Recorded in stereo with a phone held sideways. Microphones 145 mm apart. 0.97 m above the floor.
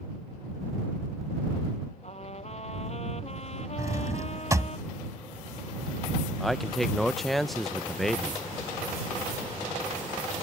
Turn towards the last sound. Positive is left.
turn(degrees=0)  # may be behind; listen again after turning